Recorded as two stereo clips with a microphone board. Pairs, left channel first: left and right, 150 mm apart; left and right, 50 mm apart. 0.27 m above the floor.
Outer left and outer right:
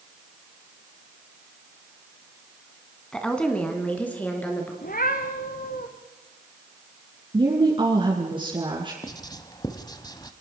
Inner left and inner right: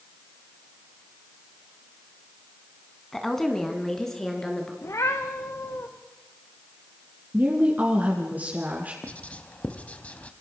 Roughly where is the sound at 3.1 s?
Centre.